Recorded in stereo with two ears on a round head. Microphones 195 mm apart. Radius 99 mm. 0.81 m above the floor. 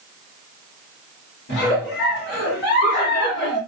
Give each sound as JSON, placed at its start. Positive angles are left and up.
{"t": 1.5, "sound": "a giggle", "side_deg": 50, "distance_m": 1.8}